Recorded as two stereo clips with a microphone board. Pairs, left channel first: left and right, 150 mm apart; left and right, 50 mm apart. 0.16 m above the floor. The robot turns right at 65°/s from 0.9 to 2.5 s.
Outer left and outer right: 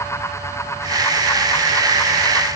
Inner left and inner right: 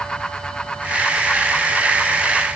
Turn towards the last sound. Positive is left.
No sound to turn to.